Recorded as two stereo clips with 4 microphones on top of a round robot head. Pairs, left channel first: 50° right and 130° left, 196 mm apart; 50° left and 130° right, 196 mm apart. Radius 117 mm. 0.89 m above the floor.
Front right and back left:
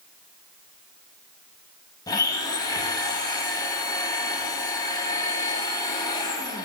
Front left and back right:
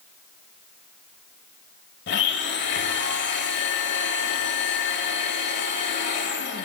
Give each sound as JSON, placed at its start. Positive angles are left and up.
{"t": 2.1, "sound": "a blender", "azimuth_deg": 25, "distance_m": 1.0}